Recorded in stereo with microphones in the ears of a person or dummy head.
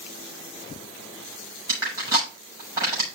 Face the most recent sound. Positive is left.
turn(degrees=-20)  # may be behind; listen again after turning